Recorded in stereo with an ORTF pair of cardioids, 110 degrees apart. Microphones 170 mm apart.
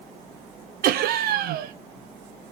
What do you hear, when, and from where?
0.8 s laughter: 65° right, 0.5 m